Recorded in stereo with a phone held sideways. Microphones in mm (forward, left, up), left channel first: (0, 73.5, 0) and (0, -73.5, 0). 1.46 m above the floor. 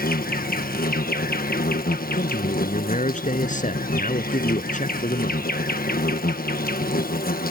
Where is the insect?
80° left.